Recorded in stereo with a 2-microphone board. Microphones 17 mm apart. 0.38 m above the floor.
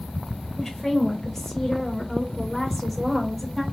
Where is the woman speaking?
25° left (ahead or behind), 1.6 m; by 3.6 s 5° right (ahead or behind), 1.5 m.